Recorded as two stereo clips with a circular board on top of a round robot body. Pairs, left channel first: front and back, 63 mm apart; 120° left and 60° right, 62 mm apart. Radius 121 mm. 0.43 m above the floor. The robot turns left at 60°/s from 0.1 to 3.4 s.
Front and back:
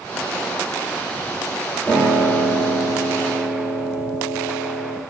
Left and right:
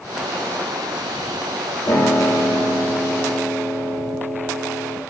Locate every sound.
1.9 s a piano: 75° left, 3.5 m; by 5.0 s 15° right, 3.5 m